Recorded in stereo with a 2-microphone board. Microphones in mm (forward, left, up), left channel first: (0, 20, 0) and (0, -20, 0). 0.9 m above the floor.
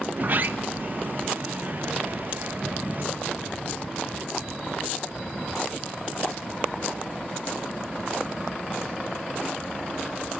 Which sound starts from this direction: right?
A sliding door, at 0.1 s.